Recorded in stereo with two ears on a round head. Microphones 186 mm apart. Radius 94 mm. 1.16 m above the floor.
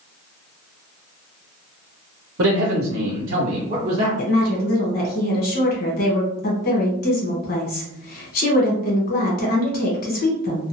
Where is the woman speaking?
45° left (ahead or behind), 1.2 m.